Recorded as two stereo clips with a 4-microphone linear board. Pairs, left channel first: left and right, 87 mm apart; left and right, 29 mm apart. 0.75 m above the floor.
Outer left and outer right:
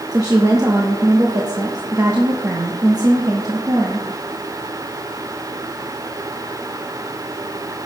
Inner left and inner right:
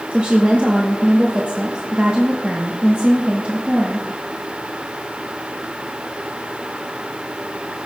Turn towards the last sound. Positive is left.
turn(degrees=-45)  # may be behind; listen again after turning